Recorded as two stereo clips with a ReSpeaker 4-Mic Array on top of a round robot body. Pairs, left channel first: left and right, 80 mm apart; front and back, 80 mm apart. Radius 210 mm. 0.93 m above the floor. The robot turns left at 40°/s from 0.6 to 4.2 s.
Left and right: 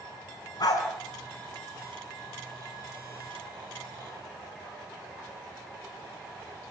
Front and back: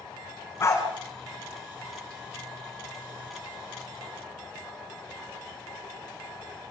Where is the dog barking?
60° left, 5 m; by 0.8 s 50° left, 5 m.